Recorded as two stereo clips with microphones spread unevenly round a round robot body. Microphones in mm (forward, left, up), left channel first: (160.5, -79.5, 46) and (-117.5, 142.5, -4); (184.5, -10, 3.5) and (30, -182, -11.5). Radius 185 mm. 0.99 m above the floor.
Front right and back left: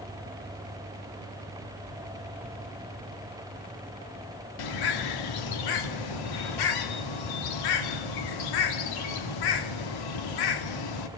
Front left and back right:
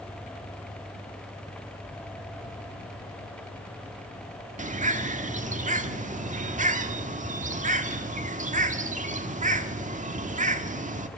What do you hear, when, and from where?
4.6 s a bird: 70° right, 1.6 m